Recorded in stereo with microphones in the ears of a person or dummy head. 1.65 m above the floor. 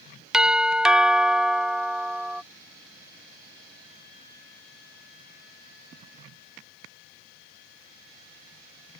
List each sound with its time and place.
0.3 s a doorbell: 5° right (ahead or behind)